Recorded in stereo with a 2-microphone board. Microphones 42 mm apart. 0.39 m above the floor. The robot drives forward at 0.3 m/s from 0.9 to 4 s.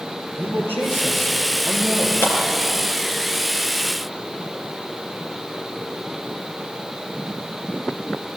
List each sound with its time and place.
0.4 s a man speaking: 70° left (ahead or behind), 10 m; by 2.1 s 75° left (ahead or behind), 9.5 m
2.2 s a clap: 80° left, 4.5 m